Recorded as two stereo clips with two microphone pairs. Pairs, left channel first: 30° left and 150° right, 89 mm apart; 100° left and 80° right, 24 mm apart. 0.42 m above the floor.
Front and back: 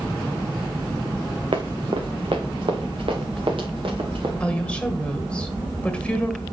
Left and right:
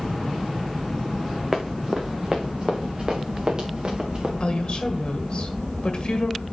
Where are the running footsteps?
160° right, 1.8 m; by 4.3 s 140° right, 3.5 m.